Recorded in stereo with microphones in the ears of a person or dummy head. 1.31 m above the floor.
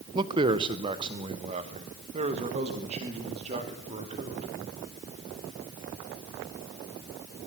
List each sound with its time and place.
0.1 s a man speaking: 25° right (ahead or behind), 0.9 m; by 4.5 s 30° right (ahead or behind), 4 m